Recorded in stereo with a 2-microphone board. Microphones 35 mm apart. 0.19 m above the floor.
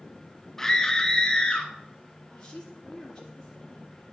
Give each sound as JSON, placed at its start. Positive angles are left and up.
{"t": 0.6, "sound": "a scream", "side_deg": 10, "distance_m": 1.1}
{"t": 2.3, "sound": "a woman speaking", "side_deg": 20, "distance_m": 3.0}